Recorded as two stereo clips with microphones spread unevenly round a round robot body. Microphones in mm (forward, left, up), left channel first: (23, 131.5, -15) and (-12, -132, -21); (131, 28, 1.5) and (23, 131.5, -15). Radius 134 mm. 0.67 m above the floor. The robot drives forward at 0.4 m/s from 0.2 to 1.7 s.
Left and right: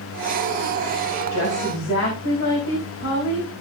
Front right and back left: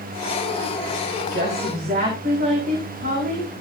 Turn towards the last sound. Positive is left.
turn(degrees=130)